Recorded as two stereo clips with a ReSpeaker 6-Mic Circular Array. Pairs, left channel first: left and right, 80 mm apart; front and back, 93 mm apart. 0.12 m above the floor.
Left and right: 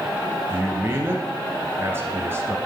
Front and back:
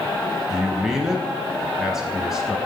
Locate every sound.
0.5 s a man speaking: 100° right, 1.2 m